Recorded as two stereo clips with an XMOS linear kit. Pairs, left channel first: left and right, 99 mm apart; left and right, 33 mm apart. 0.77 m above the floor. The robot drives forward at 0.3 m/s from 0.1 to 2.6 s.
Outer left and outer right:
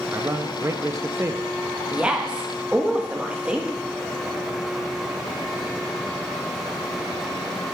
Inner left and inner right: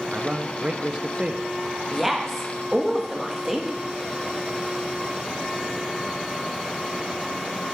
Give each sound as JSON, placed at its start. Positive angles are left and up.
{"t": 0.1, "sound": "a man speaking", "side_deg": -25, "distance_m": 0.5}
{"t": 1.9, "sound": "a woman speaking", "side_deg": -10, "distance_m": 1.0}